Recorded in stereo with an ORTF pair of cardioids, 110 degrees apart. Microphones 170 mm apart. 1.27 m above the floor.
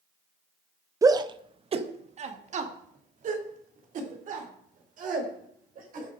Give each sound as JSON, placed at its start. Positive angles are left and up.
{"t": 1.0, "sound": "a shout", "azimuth_deg": -20, "distance_m": 1.0}